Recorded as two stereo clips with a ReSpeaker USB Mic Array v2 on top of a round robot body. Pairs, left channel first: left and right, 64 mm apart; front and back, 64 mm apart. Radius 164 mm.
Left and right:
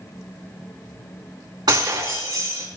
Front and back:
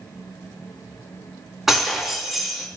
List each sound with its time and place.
1.7 s breaking glass: 90° right, 3.5 m